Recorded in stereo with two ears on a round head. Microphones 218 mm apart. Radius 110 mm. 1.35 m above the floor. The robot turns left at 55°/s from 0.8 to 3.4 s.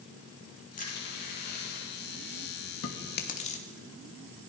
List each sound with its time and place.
0.8 s crushing: 35° left (ahead or behind), 8.5 m; by 2.0 s 80° left, 8.5 m
2.8 s chewing: 60° left (ahead or behind), 2.5 m; by 3.6 s 25° left (ahead or behind), 2.5 m